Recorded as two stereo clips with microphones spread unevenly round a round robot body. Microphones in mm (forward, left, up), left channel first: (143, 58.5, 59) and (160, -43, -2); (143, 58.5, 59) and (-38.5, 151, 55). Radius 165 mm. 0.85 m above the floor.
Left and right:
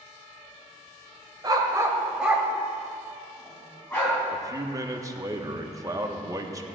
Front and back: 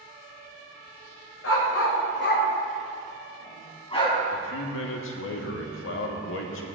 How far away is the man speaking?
About 1.5 m.